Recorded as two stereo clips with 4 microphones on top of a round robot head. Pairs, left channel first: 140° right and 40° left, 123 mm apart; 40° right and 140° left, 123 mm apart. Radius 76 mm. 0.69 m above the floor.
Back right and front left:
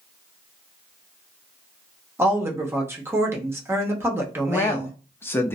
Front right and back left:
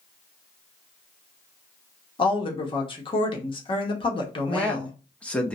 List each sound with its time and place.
2.2 s a woman speaking: 20° right, 0.9 m
4.5 s a man speaking: 105° right, 0.5 m